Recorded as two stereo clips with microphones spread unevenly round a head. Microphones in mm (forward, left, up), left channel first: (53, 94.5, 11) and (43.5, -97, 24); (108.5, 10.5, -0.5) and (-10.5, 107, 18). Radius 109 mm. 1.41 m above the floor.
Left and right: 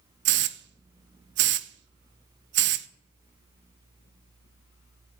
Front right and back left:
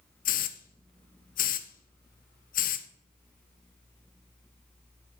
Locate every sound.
0.2 s a hiss: 70° right, 0.5 m